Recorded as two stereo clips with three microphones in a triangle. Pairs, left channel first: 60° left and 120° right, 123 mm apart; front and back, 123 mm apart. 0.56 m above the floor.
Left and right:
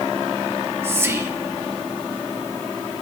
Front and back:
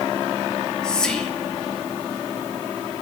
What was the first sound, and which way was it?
Whispering, 75° right.